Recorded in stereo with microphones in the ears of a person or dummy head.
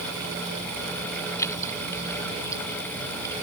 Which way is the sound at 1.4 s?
15° left (ahead or behind).